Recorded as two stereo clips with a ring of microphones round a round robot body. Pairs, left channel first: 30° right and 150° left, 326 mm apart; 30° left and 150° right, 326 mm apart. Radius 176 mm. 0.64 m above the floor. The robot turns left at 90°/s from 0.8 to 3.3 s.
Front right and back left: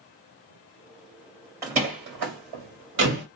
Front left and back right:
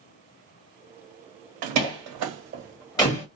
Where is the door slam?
130° right, 1.7 m; by 3.2 s 85° left, 1.7 m.